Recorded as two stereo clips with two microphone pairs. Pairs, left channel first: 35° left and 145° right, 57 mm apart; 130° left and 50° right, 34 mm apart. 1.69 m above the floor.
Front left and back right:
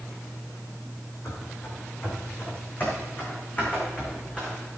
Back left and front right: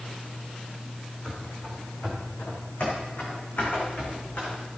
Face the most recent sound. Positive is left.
turn(degrees=100)